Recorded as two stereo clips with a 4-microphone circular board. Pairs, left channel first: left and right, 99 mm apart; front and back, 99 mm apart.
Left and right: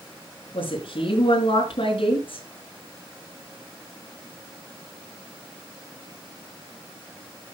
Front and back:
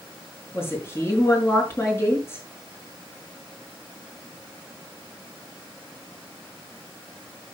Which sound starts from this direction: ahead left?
A woman speaking, at 0.5 s.